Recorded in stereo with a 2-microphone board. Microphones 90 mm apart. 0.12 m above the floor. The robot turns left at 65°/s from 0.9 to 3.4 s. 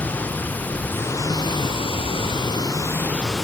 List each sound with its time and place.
0.0 s running water: 160° left; by 3.4 s straight ahead